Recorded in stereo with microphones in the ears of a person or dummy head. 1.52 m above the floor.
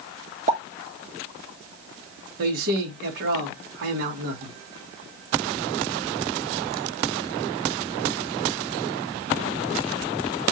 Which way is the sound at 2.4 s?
65° right (ahead or behind).